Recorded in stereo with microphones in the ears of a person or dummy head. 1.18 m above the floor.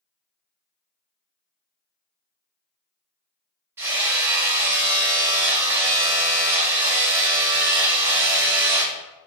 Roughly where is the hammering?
Centre.